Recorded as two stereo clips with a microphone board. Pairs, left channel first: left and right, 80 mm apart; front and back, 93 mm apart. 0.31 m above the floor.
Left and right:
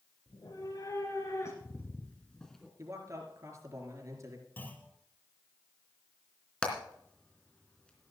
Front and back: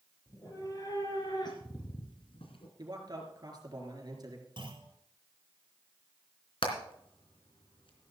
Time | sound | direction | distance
0.3 | a cat meowing | 50° left | 4.5 m
2.8 | a man speaking | 140° right | 4 m
4.6 | a clunk | 155° left | 3 m
6.6 | hammering | 15° left | 3 m